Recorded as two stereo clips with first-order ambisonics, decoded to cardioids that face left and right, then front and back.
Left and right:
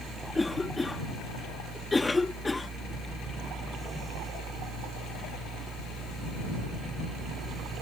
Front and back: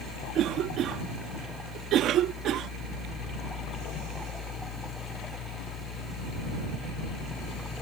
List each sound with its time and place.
0.3 s a cough: 165° left